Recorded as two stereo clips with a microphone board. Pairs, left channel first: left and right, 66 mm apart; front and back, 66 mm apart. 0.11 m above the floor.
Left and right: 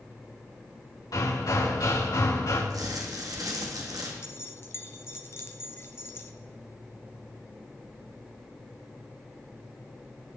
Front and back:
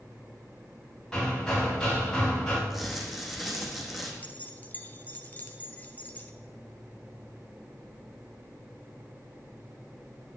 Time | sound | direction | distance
1.1 | hammering | 75° left | 8 m
2.7 | crumpling | 95° right | 3 m
4.2 | keys jangling | 55° left | 1.3 m